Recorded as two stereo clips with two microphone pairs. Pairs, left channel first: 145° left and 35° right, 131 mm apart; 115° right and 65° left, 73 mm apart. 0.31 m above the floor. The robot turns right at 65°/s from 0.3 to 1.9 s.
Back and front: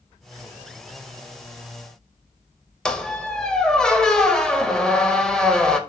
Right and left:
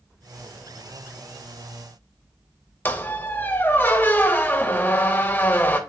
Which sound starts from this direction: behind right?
A squeak, at 2.9 s.